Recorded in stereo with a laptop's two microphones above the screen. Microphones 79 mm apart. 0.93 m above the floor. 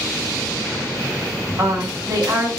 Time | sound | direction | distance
1.6 | a woman speaking | 55° right (ahead or behind) | 1.4 m